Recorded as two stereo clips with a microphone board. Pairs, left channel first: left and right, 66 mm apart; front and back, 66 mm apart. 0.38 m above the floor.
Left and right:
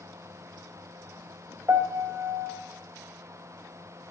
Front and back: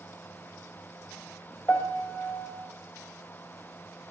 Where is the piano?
55° right, 2 m.